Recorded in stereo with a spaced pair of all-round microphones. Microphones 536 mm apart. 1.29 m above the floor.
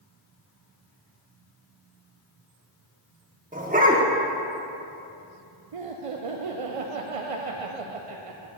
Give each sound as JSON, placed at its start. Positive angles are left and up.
{"t": 3.5, "sound": "a dog barking", "side_deg": -15, "distance_m": 0.9}
{"t": 5.7, "sound": "laughter", "side_deg": -80, "distance_m": 0.6}